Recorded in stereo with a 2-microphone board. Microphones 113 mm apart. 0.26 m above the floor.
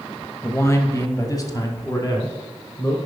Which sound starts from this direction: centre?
A man speaking, at 0.4 s.